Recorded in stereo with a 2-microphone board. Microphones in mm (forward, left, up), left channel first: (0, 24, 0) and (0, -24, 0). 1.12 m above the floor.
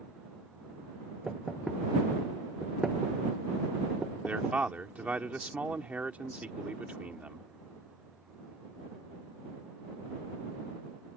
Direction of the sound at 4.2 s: 30° right (ahead or behind).